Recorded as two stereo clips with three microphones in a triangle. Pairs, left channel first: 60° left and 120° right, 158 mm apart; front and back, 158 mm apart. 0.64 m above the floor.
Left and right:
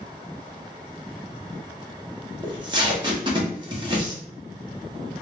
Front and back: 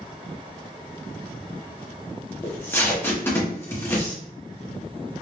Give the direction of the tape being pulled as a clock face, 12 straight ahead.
2 o'clock.